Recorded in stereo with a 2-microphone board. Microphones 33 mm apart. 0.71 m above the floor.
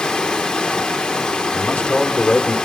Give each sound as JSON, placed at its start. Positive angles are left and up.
{"t": 0.0, "sound": "running water", "side_deg": 30, "distance_m": 1.0}
{"t": 1.5, "sound": "a man speaking", "side_deg": 60, "distance_m": 1.8}